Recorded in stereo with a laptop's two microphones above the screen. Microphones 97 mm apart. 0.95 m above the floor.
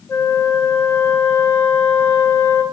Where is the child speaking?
No child speaking in this recording.